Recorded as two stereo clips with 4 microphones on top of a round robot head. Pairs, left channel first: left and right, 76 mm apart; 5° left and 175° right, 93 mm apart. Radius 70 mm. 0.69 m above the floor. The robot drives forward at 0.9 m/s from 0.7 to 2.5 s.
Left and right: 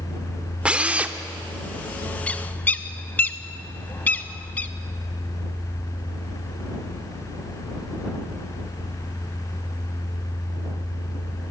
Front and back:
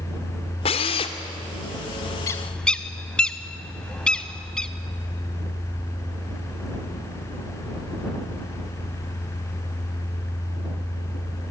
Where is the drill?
15° right, 1.8 m; by 1.2 s 20° right, 1.4 m.